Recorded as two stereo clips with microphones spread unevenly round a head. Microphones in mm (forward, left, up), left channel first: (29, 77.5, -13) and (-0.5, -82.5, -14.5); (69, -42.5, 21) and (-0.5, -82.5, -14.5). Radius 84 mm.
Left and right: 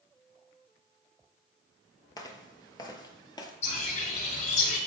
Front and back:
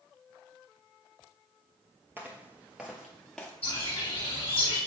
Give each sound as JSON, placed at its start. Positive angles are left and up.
{"t": 2.2, "sound": "footsteps", "azimuth_deg": 115, "distance_m": 1.1}
{"t": 3.6, "sound": "a bird", "azimuth_deg": 50, "distance_m": 4.0}